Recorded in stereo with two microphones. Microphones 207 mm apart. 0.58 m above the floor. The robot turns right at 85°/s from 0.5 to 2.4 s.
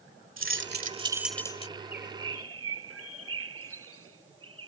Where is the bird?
145° right; by 4.7 s 90° right.